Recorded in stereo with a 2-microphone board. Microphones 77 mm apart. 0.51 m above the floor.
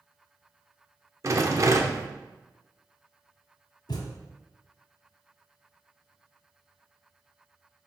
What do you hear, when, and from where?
1.2 s a rattle: 45° right (ahead or behind), 0.7 m
3.9 s a thud: 75° left (ahead or behind), 1.4 m